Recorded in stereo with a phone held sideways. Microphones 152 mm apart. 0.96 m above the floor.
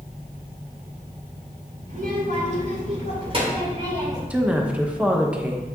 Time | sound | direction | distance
1.9 | a child speaking | 65° right (ahead or behind) | 2.5 m
4.3 | a woman speaking | 10° right (ahead or behind) | 0.9 m